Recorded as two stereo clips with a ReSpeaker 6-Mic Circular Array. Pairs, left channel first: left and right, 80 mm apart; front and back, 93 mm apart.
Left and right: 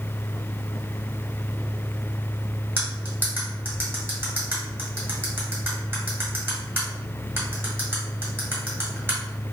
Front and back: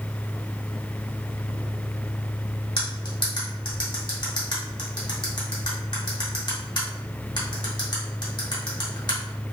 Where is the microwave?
I don't hear a microwave.